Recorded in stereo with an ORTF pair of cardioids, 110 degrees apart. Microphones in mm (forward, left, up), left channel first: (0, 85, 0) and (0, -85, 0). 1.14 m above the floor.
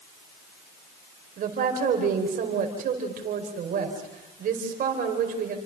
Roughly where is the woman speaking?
Ahead right.